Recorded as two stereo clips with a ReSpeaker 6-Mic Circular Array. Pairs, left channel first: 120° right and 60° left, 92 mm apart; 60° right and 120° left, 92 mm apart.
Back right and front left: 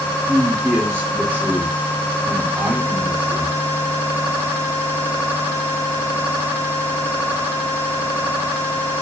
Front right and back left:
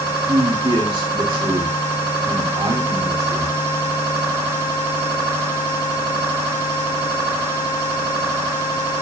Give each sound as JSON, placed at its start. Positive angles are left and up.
{"t": 0.3, "sound": "a man speaking", "azimuth_deg": 115, "distance_m": 2.5}